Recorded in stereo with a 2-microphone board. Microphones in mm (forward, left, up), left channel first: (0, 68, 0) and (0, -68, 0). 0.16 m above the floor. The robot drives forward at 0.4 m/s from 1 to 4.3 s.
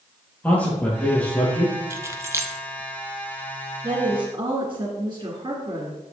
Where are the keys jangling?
20° right (ahead or behind), 0.7 m.